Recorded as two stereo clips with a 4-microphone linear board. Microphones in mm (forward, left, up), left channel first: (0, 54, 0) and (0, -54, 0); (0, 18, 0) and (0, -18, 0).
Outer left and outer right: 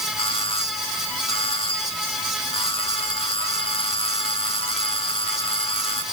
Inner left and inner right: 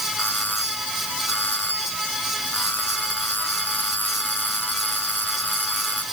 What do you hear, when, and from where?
0.2 s a doorbell: 55° left (ahead or behind)